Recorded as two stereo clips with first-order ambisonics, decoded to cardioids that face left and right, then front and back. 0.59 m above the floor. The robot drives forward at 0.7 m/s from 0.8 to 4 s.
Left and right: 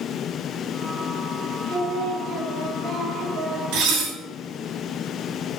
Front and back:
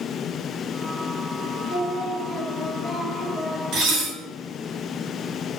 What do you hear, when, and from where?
1.7 s singing: 60° right, 1.7 m; by 3.6 s 110° right, 1.6 m
3.7 s dishes clattering: 125° right, 2 m; by 4.1 s 130° right, 2.5 m